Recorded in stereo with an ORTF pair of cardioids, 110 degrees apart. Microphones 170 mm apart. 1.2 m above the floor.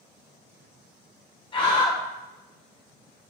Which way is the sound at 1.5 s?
30° left.